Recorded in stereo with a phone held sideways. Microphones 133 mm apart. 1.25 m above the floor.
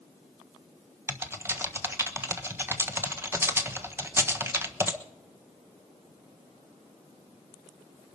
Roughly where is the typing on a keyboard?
Centre.